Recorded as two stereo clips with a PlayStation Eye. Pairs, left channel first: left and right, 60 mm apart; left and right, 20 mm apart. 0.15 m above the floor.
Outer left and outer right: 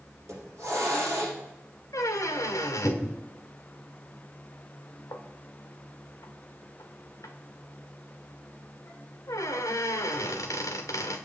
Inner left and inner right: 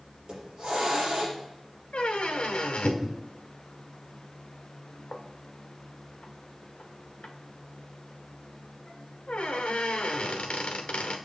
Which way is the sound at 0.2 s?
55° right (ahead or behind).